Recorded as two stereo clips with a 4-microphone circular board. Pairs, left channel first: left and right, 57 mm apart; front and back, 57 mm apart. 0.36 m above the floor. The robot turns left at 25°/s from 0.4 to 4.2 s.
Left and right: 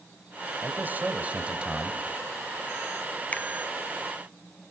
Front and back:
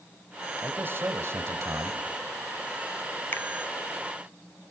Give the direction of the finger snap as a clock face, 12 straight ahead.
11 o'clock.